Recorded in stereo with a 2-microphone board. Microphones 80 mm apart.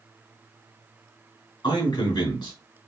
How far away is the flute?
I don't hear a flute.